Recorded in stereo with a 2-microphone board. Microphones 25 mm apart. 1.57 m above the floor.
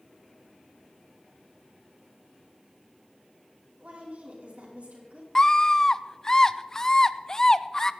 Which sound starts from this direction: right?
A woman speaking, at 3.8 s.